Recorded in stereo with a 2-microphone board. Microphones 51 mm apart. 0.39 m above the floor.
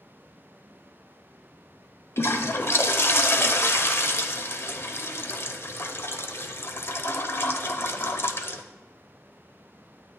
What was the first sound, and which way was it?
A toilet flushing, 50° left (ahead or behind).